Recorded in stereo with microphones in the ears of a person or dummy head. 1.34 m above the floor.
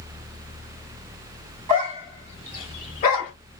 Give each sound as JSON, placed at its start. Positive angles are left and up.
{"t": 1.7, "sound": "a dog barking", "side_deg": -20, "distance_m": 1.0}